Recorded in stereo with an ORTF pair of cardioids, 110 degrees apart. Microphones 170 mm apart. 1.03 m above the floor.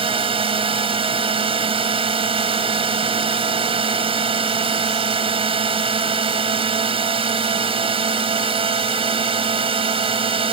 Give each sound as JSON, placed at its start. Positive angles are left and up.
{"t": 0.0, "sound": "a drone", "azimuth_deg": -35}